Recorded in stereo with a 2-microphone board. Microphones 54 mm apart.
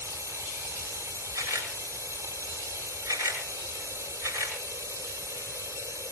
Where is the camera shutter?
75° right (ahead or behind), 8 m.